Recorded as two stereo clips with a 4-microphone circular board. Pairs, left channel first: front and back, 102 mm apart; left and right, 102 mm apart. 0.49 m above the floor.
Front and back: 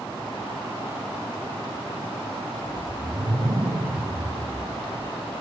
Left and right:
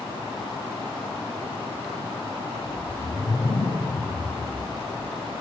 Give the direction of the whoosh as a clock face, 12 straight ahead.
8 o'clock.